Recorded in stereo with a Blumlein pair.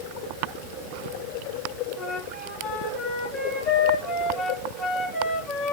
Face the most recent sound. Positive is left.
turn(degrees=25)